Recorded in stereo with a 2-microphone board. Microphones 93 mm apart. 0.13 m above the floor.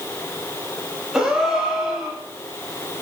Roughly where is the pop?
I don't hear a pop.